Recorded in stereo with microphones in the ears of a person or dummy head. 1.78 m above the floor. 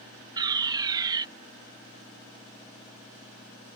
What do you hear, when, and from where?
0.4 s a fire alarm: 25° right (ahead or behind)